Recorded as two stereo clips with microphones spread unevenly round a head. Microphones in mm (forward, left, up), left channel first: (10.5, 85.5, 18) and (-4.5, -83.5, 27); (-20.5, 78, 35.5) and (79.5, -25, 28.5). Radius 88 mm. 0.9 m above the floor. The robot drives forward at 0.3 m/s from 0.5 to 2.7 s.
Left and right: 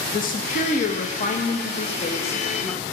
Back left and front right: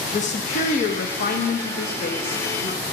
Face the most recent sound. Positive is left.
turn(degrees=145)